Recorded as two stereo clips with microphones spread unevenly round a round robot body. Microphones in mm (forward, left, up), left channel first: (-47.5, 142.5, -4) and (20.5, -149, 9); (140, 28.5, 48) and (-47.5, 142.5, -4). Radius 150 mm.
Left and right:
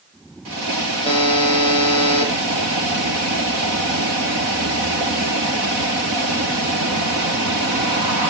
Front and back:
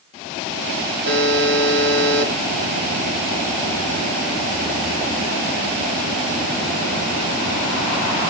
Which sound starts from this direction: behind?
A buzzer, at 1.1 s.